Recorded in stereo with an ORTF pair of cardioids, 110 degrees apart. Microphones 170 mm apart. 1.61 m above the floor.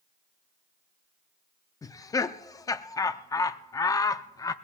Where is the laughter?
20° left, 0.6 m.